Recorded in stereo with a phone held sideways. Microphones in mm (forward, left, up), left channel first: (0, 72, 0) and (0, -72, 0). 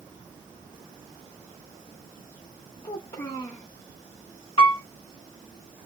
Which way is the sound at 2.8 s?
40° left (ahead or behind).